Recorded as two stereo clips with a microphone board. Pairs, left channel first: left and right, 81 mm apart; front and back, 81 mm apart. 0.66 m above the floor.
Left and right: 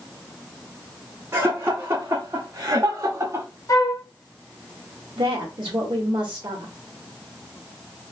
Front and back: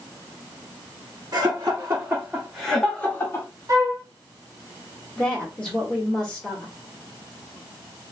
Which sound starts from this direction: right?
A woman speaking, at 5.2 s.